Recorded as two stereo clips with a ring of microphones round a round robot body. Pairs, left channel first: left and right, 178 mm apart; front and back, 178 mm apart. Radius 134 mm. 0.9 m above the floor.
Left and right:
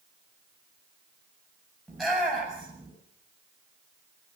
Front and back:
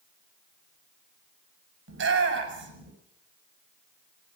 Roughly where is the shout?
Behind.